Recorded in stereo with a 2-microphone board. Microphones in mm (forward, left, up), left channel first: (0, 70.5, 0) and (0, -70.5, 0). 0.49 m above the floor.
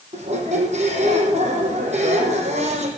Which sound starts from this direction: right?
A squeak, at 0.1 s.